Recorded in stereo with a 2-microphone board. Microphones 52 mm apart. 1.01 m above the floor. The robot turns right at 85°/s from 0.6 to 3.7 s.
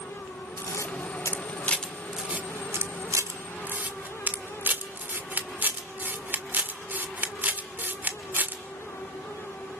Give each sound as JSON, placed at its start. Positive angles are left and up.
{"t": 0.6, "sound": "a camera shutter", "side_deg": 60, "distance_m": 1.5}